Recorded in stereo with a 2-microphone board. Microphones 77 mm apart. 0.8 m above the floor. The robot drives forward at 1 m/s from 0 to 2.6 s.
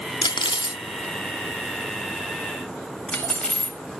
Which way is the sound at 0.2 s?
60° left (ahead or behind).